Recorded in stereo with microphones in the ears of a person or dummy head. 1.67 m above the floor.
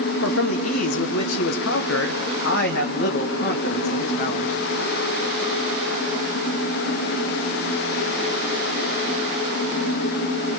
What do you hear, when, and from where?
0.2 s a man speaking: 75° left (ahead or behind), 1.3 m; by 4.5 s 45° left (ahead or behind), 3 m